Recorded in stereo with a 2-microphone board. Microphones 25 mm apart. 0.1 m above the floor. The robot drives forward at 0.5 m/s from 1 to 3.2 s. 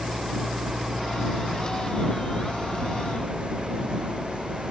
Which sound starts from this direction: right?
An engine running, at 0.0 s.